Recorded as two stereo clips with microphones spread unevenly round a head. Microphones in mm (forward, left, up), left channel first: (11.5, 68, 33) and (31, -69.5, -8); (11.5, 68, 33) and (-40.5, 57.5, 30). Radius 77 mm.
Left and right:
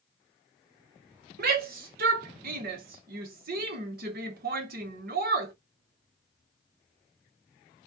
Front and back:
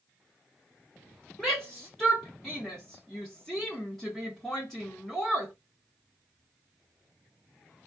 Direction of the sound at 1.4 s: 75° right.